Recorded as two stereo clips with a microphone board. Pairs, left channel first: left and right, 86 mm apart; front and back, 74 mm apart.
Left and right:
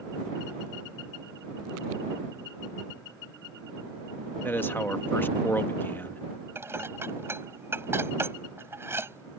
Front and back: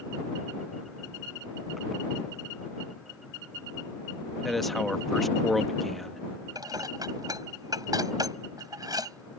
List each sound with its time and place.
4.4 s a man speaking: 85° left
6.5 s dishes clattering: 150° right